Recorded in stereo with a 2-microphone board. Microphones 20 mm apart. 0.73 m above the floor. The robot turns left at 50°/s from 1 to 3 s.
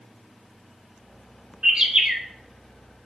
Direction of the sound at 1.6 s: 45° right (ahead or behind).